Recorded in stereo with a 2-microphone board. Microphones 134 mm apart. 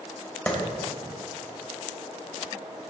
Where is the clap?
10° left (ahead or behind), 2.5 m.